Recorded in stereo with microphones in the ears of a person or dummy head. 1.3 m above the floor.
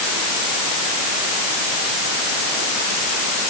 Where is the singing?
No singing in this recording.